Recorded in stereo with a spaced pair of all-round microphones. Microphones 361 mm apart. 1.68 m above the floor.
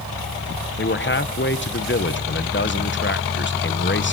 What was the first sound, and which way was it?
A man speaking, 30° left (ahead or behind).